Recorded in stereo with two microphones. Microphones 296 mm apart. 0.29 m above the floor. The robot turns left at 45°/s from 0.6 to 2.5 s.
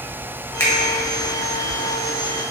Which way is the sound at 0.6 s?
10° left (ahead or behind).